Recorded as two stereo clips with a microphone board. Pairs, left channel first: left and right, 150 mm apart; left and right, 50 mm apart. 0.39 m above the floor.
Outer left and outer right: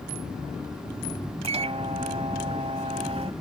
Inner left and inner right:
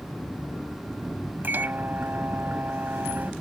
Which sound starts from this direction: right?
A microwave, at 1.4 s.